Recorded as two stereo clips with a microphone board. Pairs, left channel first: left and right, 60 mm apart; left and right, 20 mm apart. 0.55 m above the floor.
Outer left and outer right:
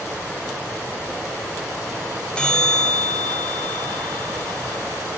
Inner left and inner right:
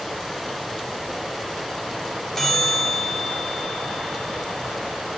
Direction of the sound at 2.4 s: 15° left (ahead or behind).